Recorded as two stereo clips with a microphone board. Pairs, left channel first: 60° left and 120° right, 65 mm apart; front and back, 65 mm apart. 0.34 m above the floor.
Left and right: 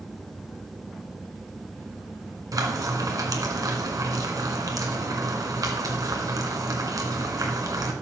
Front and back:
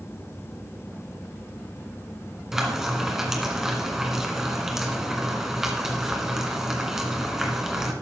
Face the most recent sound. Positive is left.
turn(degrees=-95)